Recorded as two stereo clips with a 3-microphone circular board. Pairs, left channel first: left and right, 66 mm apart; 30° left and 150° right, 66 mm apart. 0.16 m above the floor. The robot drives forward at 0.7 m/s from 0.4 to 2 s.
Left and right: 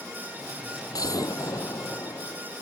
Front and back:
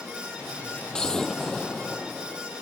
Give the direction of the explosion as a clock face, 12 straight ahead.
8 o'clock.